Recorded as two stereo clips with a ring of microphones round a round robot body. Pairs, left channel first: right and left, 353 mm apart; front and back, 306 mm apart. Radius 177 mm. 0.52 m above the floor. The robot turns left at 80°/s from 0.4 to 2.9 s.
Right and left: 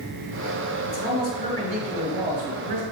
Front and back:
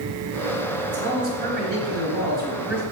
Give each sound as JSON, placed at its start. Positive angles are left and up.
{"t": 0.9, "sound": "a man speaking", "azimuth_deg": -115, "distance_m": 3.0}